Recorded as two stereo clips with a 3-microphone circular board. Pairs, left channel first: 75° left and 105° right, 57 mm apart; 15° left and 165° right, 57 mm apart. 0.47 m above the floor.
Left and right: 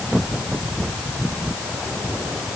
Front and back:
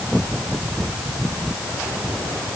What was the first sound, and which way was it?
Only background noise.